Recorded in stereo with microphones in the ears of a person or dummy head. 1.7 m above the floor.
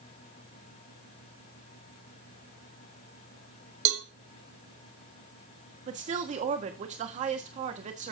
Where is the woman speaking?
40° right (ahead or behind), 1.4 m.